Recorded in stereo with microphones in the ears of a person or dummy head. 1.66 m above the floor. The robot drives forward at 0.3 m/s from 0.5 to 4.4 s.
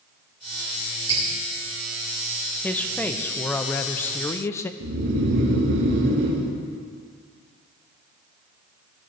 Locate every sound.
1.1 s dripping: 30° right (ahead or behind), 2.5 m
2.6 s a man speaking: 10° left (ahead or behind), 1.0 m; by 4.7 s 15° left (ahead or behind), 0.6 m
4.8 s snoring: 70° right (ahead or behind), 1.7 m